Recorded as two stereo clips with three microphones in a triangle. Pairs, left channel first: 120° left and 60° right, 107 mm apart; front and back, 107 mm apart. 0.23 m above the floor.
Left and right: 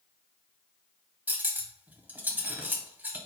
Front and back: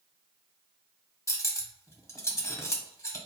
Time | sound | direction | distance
1.3 | cutlery clinking | 5° right | 0.6 m